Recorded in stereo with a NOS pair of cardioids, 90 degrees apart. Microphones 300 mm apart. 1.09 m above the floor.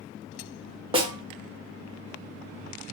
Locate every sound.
0.9 s a snare drum: 20° right, 1.0 m